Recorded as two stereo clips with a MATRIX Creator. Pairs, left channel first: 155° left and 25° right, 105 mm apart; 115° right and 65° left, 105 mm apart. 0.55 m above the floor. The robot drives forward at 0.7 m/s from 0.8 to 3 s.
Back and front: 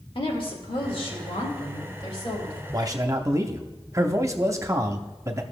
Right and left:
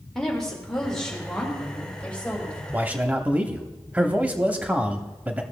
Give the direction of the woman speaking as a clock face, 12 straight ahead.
7 o'clock.